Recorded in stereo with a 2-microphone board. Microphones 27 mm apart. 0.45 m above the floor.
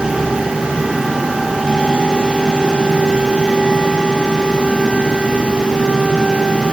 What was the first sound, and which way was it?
Only background noise.